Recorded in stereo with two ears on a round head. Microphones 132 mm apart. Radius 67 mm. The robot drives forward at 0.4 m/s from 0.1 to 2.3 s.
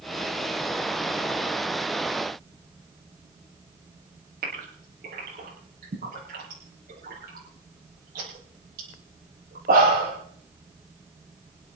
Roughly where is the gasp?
Right.